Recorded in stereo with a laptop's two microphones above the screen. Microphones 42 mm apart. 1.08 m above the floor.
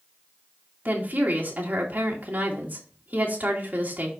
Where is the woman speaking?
45° right (ahead or behind), 2.5 m.